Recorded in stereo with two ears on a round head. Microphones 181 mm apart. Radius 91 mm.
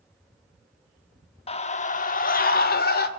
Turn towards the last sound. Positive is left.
turn(degrees=50)  # may be behind; listen again after turning